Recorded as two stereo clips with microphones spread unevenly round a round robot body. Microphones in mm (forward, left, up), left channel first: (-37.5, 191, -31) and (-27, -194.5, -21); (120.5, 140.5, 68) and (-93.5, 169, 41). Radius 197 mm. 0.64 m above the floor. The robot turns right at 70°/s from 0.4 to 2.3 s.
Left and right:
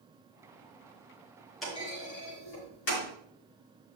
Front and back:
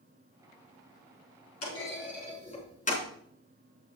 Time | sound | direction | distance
1.6 | a clunk | straight ahead | 4 m